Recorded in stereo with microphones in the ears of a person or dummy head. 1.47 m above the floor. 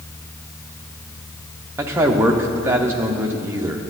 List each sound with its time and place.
1.8 s a man speaking: 10° right (ahead or behind), 0.8 m